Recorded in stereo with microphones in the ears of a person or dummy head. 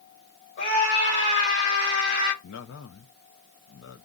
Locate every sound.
0.6 s a scream: 60° left (ahead or behind), 5.5 m; by 2.3 s 65° left (ahead or behind), 7 m
2.4 s a man speaking: 65° left (ahead or behind), 0.7 m